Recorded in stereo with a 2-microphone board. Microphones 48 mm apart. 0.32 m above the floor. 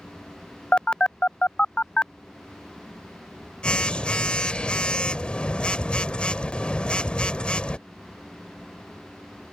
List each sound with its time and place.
0.7 s a phone buzzing: 25° left (ahead or behind)